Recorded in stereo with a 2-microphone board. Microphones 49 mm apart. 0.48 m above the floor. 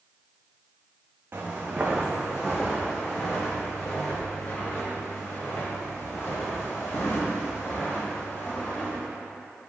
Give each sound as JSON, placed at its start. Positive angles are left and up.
{"t": 1.3, "sound": "footsteps", "side_deg": -40, "distance_m": 1.5}